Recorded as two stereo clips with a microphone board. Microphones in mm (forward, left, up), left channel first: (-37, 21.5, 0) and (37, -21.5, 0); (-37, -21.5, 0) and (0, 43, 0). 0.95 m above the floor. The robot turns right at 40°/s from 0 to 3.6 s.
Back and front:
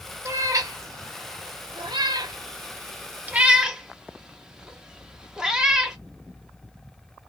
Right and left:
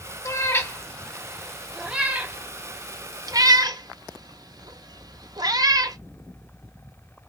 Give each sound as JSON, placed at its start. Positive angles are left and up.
{"t": 0.2, "sound": "a cat meowing", "azimuth_deg": -80, "distance_m": 0.5}